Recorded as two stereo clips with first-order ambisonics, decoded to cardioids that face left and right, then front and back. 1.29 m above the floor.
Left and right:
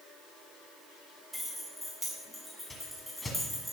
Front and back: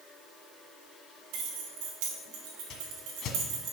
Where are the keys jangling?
Straight behind, 2.5 m.